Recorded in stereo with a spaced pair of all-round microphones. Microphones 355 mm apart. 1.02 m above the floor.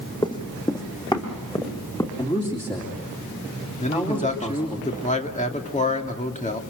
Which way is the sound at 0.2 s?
10° left (ahead or behind).